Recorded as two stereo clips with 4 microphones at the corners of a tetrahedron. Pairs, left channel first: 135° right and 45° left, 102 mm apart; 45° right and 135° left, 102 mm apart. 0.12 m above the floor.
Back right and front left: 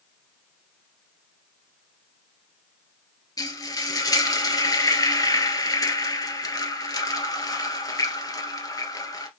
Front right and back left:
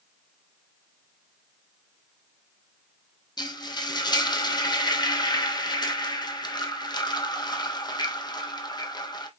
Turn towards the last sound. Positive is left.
turn(degrees=-85)